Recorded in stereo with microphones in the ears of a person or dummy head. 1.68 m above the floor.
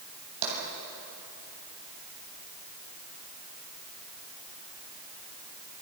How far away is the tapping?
About 7 m.